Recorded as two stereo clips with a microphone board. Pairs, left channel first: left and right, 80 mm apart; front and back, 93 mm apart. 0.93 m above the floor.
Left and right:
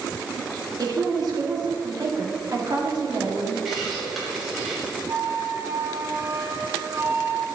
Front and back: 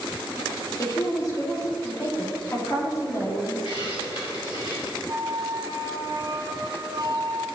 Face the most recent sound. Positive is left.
turn(degrees=-140)